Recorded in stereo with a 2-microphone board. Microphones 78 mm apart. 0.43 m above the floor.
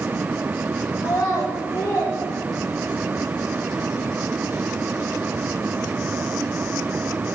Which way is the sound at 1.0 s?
50° left (ahead or behind).